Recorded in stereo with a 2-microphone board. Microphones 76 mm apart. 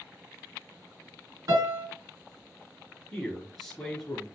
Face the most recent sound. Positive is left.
turn(degrees=5)  # may be behind; listen again after turning